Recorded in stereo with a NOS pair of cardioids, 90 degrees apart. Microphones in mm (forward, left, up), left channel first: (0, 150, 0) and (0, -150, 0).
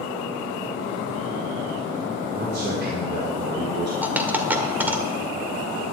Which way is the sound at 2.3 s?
35° right.